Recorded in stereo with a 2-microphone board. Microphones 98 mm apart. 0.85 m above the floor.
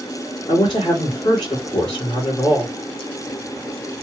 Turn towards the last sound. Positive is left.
turn(degrees=55)  # may be behind; listen again after turning